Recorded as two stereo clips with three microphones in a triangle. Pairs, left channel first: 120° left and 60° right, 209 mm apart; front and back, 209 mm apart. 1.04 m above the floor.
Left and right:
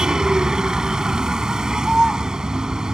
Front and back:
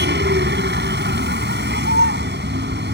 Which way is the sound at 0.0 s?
145° right.